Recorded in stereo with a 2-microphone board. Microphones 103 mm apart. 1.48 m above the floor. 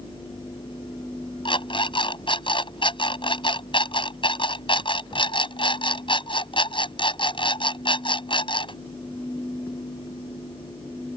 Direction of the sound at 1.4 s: 60° left (ahead or behind).